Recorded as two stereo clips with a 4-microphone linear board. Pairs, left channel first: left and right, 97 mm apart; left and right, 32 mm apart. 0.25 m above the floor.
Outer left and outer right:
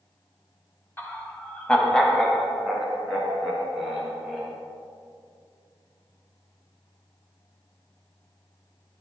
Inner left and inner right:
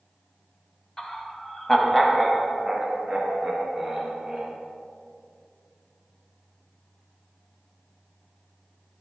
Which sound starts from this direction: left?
Laughter, at 1.0 s.